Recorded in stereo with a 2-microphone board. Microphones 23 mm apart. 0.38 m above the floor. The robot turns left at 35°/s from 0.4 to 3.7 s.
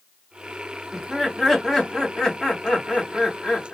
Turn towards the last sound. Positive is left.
turn(degrees=85)